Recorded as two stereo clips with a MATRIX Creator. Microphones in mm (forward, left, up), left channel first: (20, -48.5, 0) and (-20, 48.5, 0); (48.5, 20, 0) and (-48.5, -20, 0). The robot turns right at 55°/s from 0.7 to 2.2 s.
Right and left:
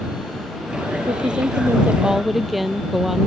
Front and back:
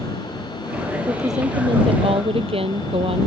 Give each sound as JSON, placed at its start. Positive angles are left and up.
{"t": 1.1, "sound": "a woman speaking", "azimuth_deg": 140}